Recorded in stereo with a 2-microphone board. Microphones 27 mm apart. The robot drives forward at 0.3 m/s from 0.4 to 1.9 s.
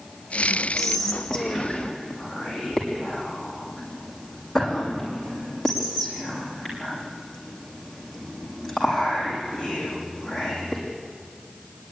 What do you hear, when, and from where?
0.8 s whispering: 10° left (ahead or behind), 5.5 m